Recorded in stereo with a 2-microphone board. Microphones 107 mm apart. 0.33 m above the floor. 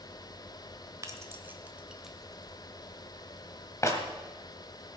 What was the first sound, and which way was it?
Keys jangling, 30° right (ahead or behind).